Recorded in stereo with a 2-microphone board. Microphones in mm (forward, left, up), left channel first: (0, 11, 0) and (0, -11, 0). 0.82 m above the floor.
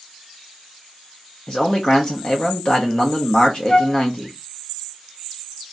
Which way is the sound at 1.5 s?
40° left (ahead or behind).